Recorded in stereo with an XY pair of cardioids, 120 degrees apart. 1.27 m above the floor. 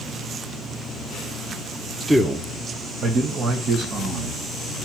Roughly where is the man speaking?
Ahead.